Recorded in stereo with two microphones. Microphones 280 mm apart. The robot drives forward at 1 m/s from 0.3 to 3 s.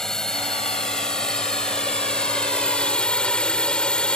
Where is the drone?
Centre (ahead or behind); by 4.2 s 5° left (ahead or behind).